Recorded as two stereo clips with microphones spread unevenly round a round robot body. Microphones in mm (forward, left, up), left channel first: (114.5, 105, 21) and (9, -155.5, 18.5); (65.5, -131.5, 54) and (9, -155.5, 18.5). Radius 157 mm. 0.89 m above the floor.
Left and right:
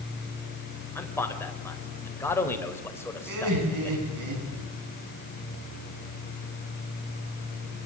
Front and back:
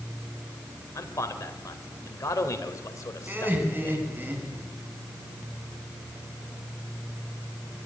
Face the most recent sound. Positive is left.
turn(degrees=-100)